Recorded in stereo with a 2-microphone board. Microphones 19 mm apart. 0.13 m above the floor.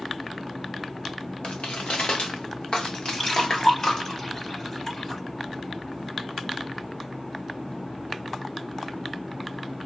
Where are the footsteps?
80° left, 0.8 m; by 4.1 s 30° left (ahead or behind), 1.5 m.